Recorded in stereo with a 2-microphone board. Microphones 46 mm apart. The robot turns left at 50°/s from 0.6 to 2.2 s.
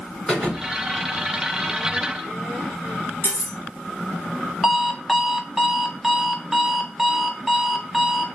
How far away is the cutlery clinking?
About 2.5 m.